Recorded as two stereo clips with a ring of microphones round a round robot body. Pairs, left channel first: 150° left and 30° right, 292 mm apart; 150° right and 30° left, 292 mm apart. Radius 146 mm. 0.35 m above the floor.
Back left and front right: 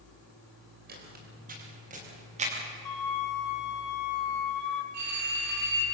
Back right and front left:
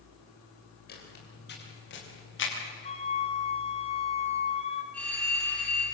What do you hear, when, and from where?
0.9 s footsteps: 90° right, 9.5 m; by 2.5 s 100° right, 8.5 m
2.9 s a flute: 140° left, 2.5 m
4.9 s a phone ringing: 65° right, 7.5 m